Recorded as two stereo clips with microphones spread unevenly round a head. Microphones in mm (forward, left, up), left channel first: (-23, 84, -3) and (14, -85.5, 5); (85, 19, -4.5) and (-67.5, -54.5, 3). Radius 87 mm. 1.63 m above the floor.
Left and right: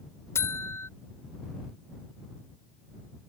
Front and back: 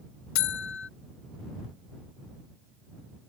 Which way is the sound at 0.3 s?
25° left.